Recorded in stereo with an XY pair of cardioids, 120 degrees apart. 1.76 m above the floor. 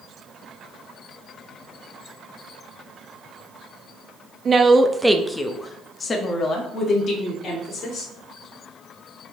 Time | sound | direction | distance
4.5 | a woman speaking | 35° right | 0.6 m